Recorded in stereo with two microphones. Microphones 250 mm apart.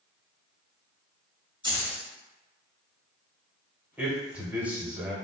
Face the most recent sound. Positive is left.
turn(degrees=-5)  # may be behind; listen again after turning